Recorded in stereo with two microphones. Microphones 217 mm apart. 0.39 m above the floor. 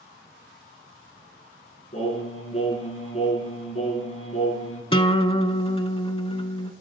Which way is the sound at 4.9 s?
25° left (ahead or behind).